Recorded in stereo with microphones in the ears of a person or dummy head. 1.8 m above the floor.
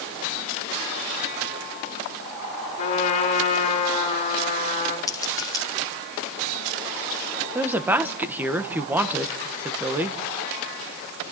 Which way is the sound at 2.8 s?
35° left (ahead or behind).